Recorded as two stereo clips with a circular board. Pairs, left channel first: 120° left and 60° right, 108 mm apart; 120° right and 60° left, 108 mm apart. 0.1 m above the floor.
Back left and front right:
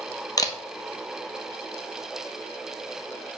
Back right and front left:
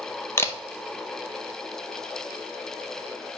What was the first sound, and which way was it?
A camera shutter, 175° left.